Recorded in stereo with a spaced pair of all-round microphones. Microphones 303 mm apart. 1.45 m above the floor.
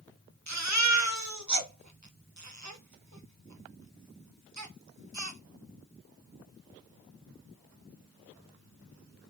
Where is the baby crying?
65° right (ahead or behind), 0.9 m.